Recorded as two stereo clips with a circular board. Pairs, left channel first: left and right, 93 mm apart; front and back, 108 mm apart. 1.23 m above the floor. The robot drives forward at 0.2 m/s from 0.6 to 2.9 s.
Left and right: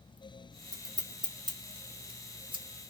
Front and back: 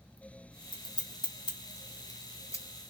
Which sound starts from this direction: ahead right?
Scissors, at 0.7 s.